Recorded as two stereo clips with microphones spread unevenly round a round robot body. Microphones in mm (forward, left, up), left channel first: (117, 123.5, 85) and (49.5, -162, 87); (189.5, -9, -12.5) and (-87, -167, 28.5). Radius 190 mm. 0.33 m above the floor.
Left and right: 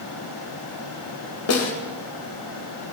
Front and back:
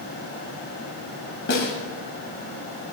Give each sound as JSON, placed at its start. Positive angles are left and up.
{"t": 1.5, "sound": "a snare drum", "azimuth_deg": 80, "distance_m": 2.0}